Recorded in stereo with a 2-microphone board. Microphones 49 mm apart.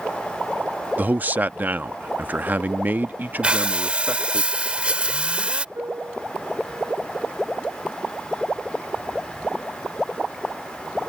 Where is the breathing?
25° right (ahead or behind).